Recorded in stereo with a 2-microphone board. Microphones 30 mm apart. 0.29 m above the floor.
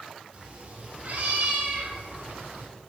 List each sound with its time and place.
0.3 s a cat meowing: 40° right (ahead or behind), 2.5 m; by 2.7 s 85° right, 2.5 m